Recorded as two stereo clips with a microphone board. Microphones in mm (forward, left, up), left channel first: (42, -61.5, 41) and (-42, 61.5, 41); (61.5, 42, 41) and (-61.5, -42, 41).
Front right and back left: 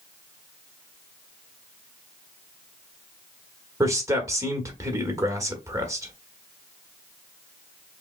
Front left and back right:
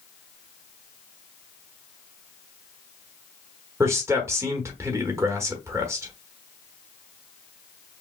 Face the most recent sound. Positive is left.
turn(degrees=165)